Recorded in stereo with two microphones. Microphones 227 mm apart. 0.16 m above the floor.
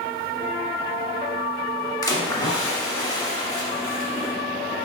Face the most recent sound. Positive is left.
turn(degrees=20)  # may be behind; listen again after turning